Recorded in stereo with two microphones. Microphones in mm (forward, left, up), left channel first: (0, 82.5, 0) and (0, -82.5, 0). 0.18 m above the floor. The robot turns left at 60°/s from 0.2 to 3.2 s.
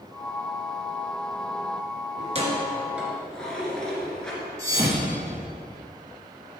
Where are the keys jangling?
50° right (ahead or behind), 2.0 m; by 4.4 s 5° left (ahead or behind), 2.0 m.